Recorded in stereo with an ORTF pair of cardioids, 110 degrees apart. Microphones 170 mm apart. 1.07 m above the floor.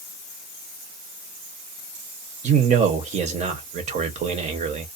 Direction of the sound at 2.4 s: 45° right.